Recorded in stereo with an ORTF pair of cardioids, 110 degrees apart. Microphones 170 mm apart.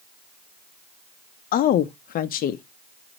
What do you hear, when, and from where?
1.5 s a woman speaking: 55° left, 0.6 m